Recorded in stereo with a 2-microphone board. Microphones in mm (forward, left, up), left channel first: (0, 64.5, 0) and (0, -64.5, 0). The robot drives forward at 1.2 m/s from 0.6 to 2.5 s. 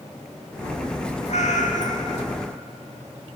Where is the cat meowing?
60° left (ahead or behind), 1.2 m.